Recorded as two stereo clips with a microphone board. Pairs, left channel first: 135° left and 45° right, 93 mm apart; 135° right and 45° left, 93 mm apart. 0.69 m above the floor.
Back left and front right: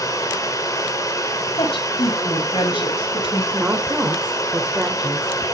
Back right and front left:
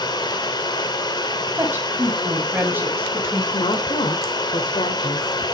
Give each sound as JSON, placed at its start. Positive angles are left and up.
{"t": 0.0, "sound": "running water", "azimuth_deg": -175, "distance_m": 2.5}
{"t": 1.6, "sound": "a woman speaking", "azimuth_deg": 115, "distance_m": 4.5}
{"t": 3.5, "sound": "a woman speaking", "azimuth_deg": -120, "distance_m": 2.0}